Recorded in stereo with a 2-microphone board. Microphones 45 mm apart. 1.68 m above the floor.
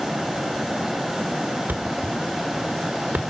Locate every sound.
1.7 s a thud: 40° right (ahead or behind), 1.6 m